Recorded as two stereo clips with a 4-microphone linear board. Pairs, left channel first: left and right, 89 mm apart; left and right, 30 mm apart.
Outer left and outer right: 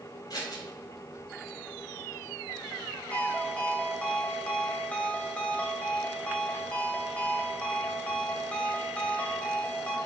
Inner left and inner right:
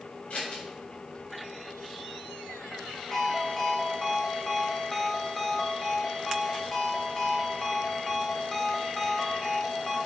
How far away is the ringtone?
About 1.3 m.